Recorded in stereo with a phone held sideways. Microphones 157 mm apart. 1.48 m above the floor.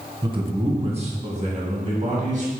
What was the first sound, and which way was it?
A man speaking, 30° right (ahead or behind).